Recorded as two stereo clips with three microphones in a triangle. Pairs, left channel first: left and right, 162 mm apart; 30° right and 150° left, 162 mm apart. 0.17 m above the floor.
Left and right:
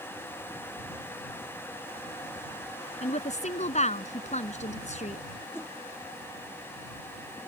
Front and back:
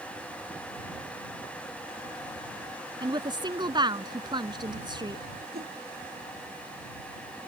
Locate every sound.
3.0 s a woman speaking: 100° left
5.5 s a whoosh: 165° left